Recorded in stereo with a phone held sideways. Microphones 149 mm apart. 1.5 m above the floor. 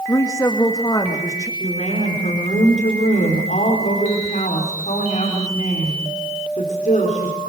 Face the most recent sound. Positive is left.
turn(degrees=55)  # may be behind; listen again after turning